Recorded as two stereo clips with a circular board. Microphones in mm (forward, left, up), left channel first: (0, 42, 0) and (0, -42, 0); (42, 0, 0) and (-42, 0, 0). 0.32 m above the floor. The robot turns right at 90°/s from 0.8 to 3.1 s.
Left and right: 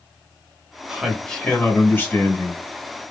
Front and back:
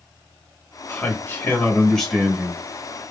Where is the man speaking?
20° right, 1.1 m; by 2.6 s 135° left, 1.1 m.